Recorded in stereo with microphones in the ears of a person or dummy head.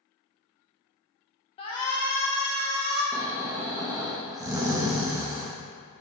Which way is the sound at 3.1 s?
20° right (ahead or behind).